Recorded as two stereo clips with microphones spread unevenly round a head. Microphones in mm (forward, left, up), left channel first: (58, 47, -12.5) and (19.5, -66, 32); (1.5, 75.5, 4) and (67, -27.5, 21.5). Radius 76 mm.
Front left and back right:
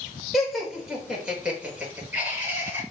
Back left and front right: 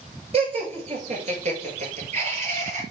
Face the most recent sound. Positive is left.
turn(degrees=-40)